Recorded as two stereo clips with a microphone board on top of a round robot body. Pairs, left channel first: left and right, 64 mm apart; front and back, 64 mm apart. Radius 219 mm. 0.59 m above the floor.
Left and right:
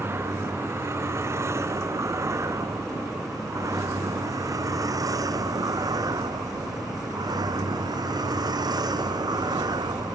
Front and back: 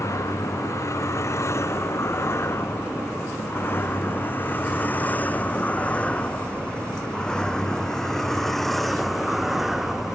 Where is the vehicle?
40° right; by 10.2 s 95° right.